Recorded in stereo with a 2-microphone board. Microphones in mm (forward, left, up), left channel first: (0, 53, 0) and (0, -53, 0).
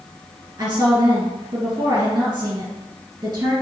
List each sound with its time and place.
0.6 s a woman speaking: 35° right (ahead or behind), 1.8 m